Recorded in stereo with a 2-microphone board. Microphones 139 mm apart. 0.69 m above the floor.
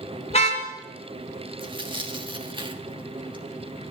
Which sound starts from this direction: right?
Tearing paper, at 1.6 s.